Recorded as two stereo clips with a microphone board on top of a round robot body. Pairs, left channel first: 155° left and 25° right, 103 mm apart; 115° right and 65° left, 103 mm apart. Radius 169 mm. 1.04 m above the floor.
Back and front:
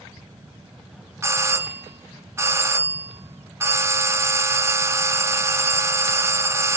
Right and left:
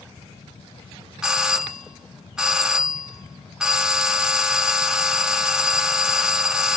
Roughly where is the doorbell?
Ahead.